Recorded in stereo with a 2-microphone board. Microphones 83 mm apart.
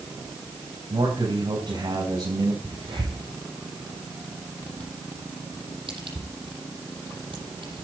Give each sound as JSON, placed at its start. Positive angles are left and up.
{"t": 0.9, "sound": "a man speaking", "side_deg": -65, "distance_m": 4.0}
{"t": 2.6, "sound": "a crack", "side_deg": -80, "distance_m": 8.0}